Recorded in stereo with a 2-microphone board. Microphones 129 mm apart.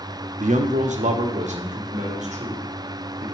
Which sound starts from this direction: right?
A man speaking, at 0.4 s.